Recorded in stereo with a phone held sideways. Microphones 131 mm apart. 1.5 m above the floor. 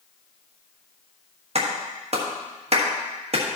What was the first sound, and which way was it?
A clap, 50° right (ahead or behind).